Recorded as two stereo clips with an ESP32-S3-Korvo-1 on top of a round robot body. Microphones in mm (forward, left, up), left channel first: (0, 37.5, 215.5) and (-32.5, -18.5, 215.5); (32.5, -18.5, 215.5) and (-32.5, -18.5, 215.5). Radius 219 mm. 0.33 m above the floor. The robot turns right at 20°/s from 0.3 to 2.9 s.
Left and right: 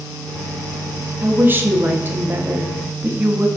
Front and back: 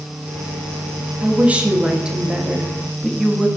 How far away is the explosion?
I don't hear an explosion.